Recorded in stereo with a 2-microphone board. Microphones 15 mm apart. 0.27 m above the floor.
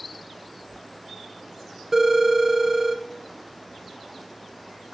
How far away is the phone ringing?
About 1.5 m.